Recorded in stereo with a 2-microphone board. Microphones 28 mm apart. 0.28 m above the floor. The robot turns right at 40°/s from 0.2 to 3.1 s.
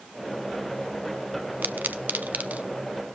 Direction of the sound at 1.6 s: 80° right.